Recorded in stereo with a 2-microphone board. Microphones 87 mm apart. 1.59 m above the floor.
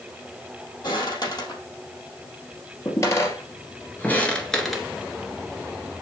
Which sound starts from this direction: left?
Footsteps, at 0.8 s.